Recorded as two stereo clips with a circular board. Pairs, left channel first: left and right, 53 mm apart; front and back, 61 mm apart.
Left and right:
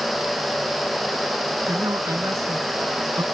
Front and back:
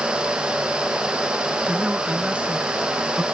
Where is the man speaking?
105° right.